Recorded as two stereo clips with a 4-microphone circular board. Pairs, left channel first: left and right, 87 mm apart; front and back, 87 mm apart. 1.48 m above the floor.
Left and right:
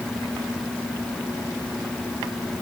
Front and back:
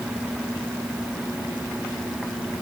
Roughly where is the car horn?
I don't hear a car horn.